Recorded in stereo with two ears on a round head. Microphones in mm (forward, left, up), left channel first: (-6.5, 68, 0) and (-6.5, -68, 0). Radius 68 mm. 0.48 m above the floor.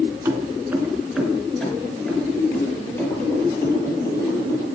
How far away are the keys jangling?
About 3 m.